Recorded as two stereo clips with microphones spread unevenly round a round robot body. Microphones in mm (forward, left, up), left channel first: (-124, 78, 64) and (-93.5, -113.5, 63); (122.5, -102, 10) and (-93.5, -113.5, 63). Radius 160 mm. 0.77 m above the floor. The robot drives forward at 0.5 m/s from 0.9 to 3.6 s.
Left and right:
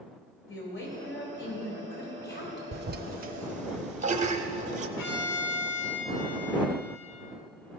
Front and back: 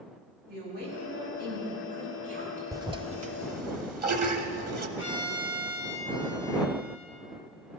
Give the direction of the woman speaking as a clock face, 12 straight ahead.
8 o'clock.